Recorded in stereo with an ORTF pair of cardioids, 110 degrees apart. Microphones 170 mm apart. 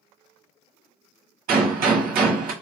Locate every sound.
1.5 s a gunshot: 60° right, 1.4 m